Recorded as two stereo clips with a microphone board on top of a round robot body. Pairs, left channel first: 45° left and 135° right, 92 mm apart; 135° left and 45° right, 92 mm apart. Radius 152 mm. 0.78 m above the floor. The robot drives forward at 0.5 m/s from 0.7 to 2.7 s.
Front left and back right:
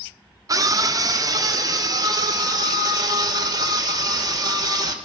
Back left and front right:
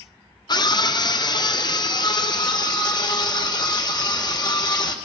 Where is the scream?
175° left, 1.7 m.